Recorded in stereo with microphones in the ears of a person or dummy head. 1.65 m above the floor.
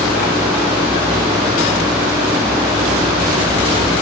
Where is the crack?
I don't hear a crack.